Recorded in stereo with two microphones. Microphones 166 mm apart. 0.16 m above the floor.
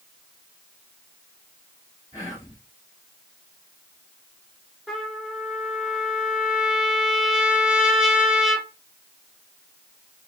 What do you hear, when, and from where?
2.1 s whispering: 20° left (ahead or behind), 1.2 m
4.9 s a trumpet: 5° right (ahead or behind), 0.9 m